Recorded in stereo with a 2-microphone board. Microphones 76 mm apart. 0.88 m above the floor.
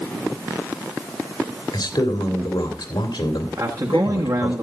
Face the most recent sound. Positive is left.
turn(degrees=-55)  # may be behind; listen again after turning